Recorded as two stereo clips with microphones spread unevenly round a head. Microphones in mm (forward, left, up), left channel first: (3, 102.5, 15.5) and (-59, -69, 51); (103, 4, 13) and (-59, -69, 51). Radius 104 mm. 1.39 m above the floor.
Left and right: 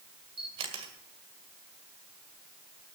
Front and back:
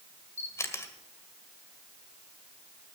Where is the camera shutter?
60° right, 1.8 m.